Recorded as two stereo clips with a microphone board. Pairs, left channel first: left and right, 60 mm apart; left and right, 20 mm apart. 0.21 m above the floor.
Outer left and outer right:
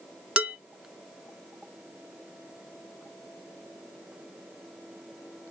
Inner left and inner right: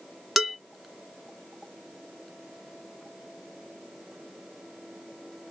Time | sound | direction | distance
0.4 | dishes clattering | 15° right (ahead or behind) | 0.9 m